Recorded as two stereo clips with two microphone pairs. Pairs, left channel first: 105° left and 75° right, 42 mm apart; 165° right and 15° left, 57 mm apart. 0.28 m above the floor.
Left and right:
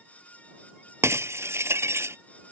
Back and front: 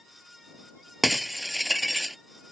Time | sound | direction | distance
1.0 | breaking glass | 75° right | ?